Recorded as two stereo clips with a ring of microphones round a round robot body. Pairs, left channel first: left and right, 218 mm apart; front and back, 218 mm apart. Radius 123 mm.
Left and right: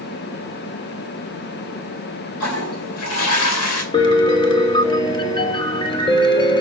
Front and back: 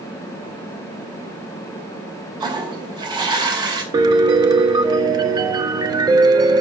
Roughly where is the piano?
Behind left.